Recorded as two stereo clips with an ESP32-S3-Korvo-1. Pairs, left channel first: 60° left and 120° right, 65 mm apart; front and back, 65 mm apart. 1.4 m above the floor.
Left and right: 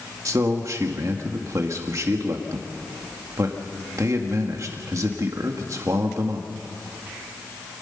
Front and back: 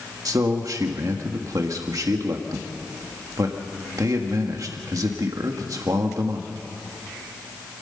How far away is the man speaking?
About 1.8 m.